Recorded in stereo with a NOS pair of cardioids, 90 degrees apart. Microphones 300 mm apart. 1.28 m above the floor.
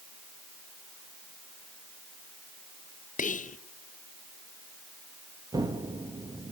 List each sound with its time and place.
3.2 s whispering: 25° left, 0.9 m
5.5 s an explosion: 10° right, 1.5 m